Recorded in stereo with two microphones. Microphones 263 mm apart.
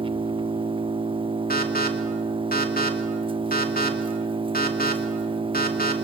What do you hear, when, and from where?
0.0 s an engine running: 20° right (ahead or behind), 0.7 m
1.5 s an alarm: 35° left (ahead or behind), 3 m